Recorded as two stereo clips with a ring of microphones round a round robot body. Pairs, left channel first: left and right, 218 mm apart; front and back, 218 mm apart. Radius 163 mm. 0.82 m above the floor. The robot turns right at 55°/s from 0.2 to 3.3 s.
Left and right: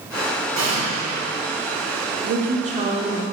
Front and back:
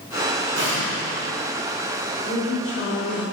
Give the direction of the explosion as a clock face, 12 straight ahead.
4 o'clock.